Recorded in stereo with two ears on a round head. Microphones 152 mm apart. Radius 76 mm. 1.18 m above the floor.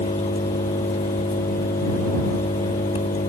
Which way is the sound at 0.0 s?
40° left (ahead or behind).